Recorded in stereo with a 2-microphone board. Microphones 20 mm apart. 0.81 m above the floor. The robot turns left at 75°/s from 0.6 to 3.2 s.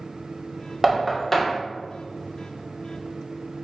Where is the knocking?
20° right (ahead or behind), 0.6 m; by 1.6 s 25° left (ahead or behind), 0.6 m.